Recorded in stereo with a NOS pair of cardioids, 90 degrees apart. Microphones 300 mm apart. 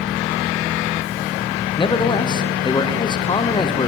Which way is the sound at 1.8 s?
15° left.